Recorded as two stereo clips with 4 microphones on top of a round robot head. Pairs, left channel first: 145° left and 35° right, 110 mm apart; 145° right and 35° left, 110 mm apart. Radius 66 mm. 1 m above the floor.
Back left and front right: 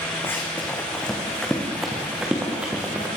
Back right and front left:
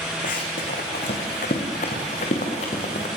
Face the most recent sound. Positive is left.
turn(degrees=-110)